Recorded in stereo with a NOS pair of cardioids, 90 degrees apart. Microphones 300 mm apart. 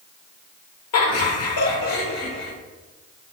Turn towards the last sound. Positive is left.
turn(degrees=40)